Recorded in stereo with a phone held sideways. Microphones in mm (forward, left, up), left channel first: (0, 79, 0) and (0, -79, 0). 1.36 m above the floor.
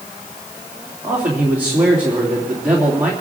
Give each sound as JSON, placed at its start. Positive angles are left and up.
{"t": 1.0, "sound": "a man speaking", "side_deg": -10, "distance_m": 3.0}